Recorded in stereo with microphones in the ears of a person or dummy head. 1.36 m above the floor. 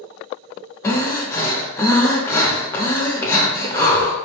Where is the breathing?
20° left (ahead or behind), 1.0 m.